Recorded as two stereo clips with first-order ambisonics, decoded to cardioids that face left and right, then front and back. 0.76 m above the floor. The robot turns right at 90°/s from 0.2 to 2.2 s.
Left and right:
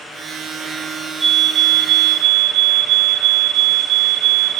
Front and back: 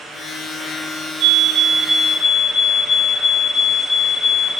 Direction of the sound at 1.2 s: Straight behind.